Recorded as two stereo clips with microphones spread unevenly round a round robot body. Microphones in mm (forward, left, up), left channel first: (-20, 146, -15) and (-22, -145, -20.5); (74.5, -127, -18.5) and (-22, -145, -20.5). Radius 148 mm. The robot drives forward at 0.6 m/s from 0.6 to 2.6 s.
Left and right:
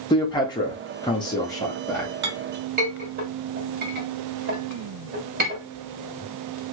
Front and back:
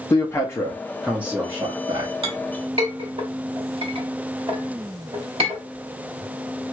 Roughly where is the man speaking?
Ahead left.